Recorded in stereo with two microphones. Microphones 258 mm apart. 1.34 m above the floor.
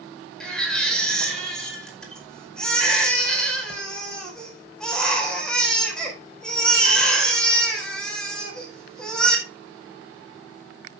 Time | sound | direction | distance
0.4 | a baby crying | 5° left (ahead or behind) | 4.5 m